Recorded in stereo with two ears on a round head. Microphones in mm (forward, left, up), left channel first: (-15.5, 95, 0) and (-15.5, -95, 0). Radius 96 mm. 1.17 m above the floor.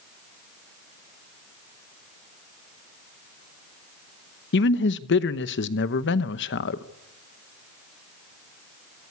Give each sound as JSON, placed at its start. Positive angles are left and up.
{"t": 4.5, "sound": "a man speaking", "side_deg": 60, "distance_m": 0.9}